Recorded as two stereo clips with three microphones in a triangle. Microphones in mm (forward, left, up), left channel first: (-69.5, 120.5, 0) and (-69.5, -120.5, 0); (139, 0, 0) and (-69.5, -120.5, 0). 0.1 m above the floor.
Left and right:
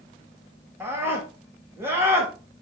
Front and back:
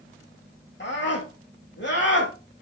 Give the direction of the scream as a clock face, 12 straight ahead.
12 o'clock.